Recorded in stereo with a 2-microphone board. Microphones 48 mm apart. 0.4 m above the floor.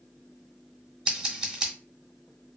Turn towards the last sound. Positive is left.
turn(degrees=-15)  # may be behind; listen again after turning